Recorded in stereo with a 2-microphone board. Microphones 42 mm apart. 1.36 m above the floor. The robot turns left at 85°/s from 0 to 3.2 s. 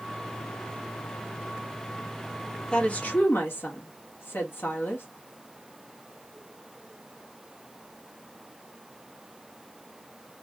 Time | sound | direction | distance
2.7 | a woman speaking | 160° left | 1.8 m